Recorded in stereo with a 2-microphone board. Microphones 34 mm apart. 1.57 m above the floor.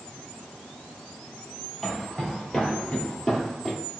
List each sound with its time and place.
1.8 s footsteps: 10° left (ahead or behind), 1.8 m